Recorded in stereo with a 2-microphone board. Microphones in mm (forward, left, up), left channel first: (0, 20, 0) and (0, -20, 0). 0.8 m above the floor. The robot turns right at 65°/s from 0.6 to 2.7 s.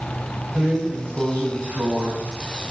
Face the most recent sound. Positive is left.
turn(degrees=-45)